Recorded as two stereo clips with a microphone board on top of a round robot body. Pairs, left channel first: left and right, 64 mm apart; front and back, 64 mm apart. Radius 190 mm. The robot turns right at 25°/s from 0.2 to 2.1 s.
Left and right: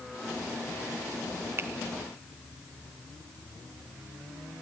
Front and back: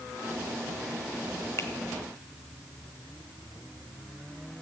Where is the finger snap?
40° right, 1.5 m; by 1.7 s 35° right, 1.5 m.